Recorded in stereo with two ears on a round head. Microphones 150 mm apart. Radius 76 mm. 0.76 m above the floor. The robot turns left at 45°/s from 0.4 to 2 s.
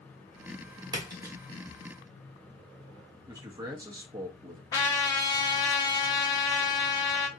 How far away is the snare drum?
No snare drum in this recording.